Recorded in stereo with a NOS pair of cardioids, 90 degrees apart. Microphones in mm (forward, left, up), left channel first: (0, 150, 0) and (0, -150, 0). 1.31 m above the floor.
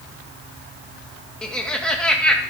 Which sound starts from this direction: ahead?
Laughter, at 1.4 s.